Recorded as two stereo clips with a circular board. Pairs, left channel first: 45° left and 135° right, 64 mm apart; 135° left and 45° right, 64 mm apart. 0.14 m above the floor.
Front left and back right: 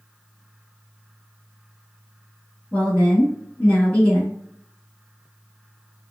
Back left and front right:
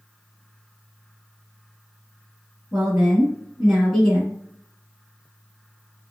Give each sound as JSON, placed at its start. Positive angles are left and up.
{"t": 2.7, "sound": "a woman speaking", "azimuth_deg": 25, "distance_m": 1.1}